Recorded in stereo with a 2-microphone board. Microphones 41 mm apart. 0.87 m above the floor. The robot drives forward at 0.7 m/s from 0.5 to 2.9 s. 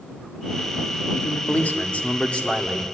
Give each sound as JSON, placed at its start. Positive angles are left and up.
{"t": 1.1, "sound": "a man speaking", "side_deg": 45, "distance_m": 1.3}